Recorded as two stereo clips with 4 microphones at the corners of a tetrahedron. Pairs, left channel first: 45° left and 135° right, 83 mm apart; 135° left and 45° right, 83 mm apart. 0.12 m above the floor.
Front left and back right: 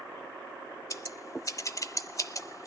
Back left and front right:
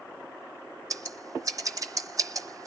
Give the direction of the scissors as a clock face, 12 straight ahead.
12 o'clock.